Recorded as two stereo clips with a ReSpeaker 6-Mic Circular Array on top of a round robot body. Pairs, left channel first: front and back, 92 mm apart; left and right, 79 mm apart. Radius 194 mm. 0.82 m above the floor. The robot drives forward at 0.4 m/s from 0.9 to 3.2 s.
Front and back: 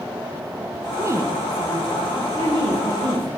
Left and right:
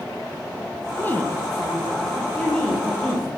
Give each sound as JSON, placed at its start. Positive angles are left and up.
{"t": 1.0, "sound": "a woman speaking", "azimuth_deg": 140, "distance_m": 0.8}